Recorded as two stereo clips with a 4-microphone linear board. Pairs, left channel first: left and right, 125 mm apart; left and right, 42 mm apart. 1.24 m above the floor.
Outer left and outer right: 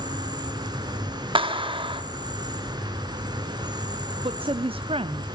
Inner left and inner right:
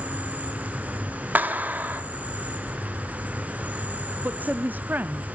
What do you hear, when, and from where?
0.0 s an insect: 35° right (ahead or behind), 3 m
1.4 s a clap: 45° right (ahead or behind), 1.9 m
4.2 s a woman speaking: 45° right (ahead or behind), 0.6 m